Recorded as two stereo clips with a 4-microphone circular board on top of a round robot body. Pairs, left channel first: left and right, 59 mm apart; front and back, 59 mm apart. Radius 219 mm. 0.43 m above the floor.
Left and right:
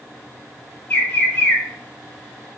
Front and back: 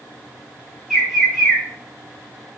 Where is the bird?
105° left, 1.5 m.